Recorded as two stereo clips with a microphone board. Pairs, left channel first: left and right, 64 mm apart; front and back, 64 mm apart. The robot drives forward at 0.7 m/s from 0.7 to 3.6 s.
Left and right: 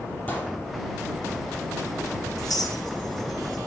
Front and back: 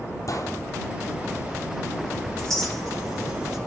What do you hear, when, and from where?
0.3 s a gunshot: 25° left, 4 m
2.4 s a clink: 80° left, 4.5 m; by 3.6 s 90° left, 4.5 m